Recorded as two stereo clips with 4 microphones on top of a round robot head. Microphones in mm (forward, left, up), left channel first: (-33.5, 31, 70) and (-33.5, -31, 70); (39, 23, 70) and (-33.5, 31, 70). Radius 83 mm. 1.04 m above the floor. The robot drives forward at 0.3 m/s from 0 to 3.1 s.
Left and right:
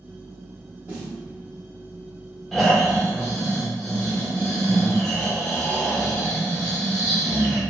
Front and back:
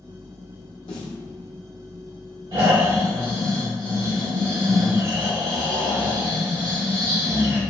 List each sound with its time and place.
0.9 s a snare drum: 15° right, 1.0 m; by 1.2 s 20° right, 0.9 m
2.5 s snoring: 175° left, 1.9 m